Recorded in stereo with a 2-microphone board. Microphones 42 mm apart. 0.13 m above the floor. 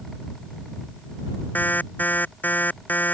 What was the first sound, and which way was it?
An alarm, 40° left (ahead or behind).